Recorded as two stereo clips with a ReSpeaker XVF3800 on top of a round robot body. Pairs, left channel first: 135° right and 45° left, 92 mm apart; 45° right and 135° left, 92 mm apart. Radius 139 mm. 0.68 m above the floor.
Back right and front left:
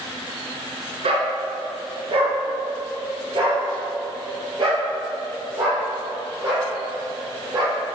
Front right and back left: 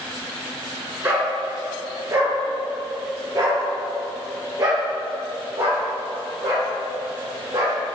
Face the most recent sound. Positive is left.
turn(degrees=85)